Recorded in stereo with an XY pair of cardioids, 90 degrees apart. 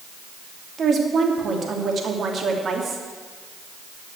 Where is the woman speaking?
50° right, 2.5 m.